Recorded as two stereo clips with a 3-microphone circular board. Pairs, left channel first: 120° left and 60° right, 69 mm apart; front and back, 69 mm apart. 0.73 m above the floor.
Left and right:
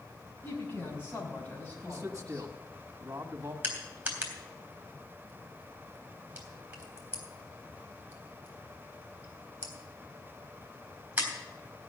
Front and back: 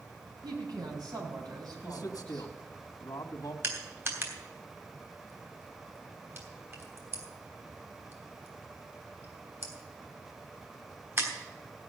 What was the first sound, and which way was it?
A woman speaking, straight behind.